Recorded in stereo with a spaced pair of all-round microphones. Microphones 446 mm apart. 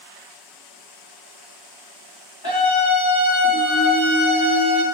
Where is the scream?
55° left (ahead or behind), 1.6 m.